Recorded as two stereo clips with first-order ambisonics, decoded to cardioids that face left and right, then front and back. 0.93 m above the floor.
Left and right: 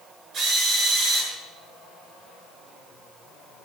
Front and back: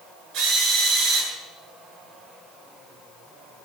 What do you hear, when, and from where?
0.3 s a drill: 135° right, 7.5 m